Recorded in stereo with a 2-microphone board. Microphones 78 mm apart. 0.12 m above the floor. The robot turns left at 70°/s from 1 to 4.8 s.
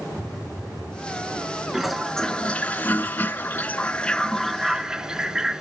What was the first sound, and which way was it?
A phone buzzing, 15° right (ahead or behind).